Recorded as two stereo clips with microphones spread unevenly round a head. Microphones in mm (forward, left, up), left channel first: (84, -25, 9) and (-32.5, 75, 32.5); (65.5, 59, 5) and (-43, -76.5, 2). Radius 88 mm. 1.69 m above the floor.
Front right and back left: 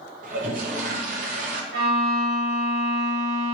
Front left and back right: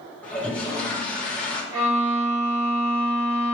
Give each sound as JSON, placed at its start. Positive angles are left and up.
{"t": 0.2, "sound": "a toilet flushing", "azimuth_deg": 135, "distance_m": 0.7}
{"t": 1.7, "sound": "a violin", "azimuth_deg": 170, "distance_m": 2.0}